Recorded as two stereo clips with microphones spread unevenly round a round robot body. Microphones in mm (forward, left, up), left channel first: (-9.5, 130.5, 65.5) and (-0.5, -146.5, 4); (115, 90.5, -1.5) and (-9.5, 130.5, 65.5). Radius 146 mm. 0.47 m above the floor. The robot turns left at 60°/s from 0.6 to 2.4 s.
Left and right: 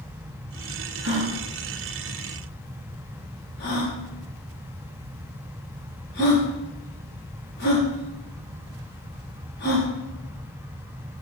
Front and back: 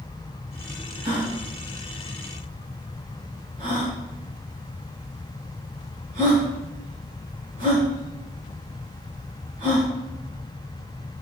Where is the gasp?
135° right, 5 m; by 9.9 s 140° left, 5 m.